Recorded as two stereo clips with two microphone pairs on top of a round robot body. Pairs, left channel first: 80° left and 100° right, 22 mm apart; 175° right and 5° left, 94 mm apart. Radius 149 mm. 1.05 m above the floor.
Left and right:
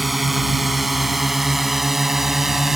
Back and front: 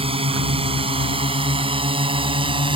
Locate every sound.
0.0 s a drone: 15° right; by 2.8 s 25° right